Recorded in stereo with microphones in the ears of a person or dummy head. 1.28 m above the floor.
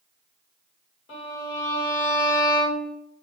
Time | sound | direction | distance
1.1 | a violin | 40° left (ahead or behind) | 3.5 m